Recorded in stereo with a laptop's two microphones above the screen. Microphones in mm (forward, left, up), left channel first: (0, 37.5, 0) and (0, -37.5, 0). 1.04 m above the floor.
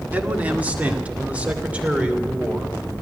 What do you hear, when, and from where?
0.1 s a man speaking: 20° right (ahead or behind), 2.0 m; by 2.8 s 15° right (ahead or behind), 3.5 m